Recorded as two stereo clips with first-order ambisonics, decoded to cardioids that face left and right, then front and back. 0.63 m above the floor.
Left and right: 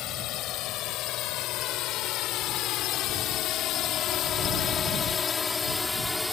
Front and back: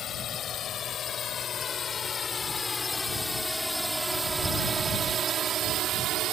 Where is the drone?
55° left; by 6.3 s 175° left.